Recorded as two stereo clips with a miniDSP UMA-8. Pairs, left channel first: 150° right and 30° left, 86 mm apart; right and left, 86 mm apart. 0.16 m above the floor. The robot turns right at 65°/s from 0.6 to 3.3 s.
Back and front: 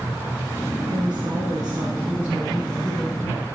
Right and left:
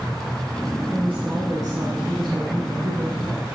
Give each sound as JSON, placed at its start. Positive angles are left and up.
{"t": 0.9, "sound": "a woman speaking", "azimuth_deg": 10, "distance_m": 2.0}